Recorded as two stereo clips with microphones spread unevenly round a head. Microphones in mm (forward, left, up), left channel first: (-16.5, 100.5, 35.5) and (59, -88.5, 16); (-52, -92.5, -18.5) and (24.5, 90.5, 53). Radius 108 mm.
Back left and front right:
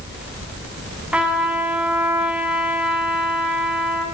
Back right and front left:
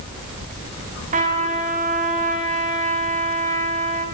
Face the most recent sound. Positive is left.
turn(degrees=20)